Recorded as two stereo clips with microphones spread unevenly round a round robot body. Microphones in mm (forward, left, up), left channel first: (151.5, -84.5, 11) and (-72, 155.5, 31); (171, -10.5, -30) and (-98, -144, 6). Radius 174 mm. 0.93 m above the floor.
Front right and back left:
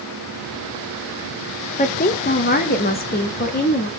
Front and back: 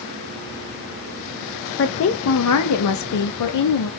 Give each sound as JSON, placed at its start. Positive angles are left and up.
{"t": 1.8, "sound": "a woman speaking", "azimuth_deg": 5, "distance_m": 0.8}